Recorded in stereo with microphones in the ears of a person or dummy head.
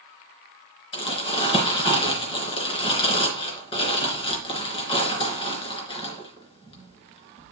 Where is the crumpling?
30° left (ahead or behind), 3.5 m.